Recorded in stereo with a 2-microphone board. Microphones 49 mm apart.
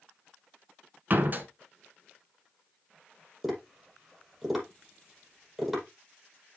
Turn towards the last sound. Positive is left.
turn(degrees=-5)  # may be behind; listen again after turning